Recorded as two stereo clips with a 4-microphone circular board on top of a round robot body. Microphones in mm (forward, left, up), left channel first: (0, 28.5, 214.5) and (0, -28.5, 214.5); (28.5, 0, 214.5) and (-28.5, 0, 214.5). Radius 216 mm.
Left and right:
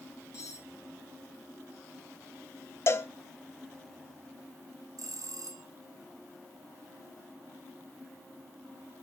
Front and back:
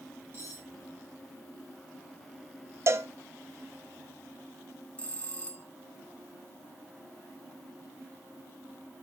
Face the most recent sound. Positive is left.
turn(degrees=-70)